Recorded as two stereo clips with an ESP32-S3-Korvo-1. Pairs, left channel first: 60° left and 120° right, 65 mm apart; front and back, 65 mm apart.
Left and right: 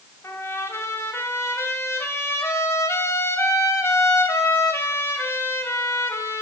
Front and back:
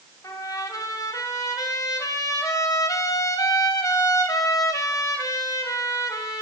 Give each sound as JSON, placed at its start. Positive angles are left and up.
{"t": 0.2, "sound": "a trumpet", "azimuth_deg": 15, "distance_m": 2.0}